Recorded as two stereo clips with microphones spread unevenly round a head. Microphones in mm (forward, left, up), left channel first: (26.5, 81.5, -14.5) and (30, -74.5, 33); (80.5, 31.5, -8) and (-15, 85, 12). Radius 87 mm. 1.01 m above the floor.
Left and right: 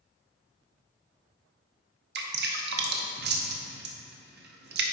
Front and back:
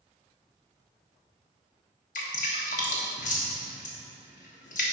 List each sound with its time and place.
2.1 s dripping: 75° right, 0.9 m